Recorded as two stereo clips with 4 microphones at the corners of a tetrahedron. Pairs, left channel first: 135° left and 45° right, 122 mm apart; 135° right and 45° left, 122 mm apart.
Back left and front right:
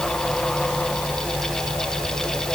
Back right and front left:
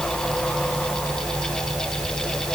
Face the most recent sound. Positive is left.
No sound to turn to.